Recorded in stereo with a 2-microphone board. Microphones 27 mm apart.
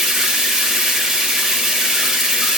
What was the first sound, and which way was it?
Running water, 15° right (ahead or behind).